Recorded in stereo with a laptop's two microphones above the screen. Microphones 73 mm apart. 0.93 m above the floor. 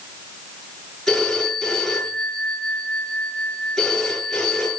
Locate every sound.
1.1 s a phone ringing: 5° left (ahead or behind), 10 m